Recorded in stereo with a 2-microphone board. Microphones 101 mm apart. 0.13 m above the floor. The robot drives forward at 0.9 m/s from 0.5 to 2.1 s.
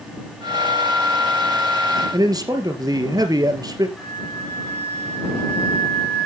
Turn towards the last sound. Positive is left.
turn(degrees=10)  # may be behind; listen again after turning